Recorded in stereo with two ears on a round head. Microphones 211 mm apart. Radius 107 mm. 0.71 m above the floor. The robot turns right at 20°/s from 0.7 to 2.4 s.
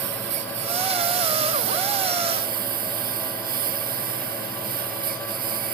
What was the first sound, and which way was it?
A lawn mower, 70° right.